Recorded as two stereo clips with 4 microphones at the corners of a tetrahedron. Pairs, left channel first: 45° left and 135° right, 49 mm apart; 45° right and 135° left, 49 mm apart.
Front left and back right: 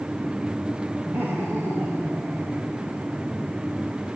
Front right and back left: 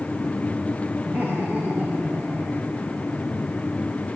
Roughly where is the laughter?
Behind.